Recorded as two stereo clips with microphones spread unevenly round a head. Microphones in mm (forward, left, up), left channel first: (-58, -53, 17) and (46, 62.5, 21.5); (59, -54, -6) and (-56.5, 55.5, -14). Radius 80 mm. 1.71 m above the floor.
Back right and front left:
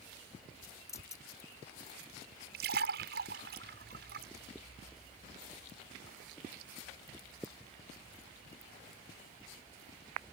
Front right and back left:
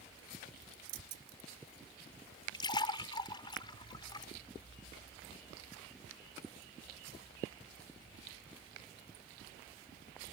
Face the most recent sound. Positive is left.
turn(degrees=20)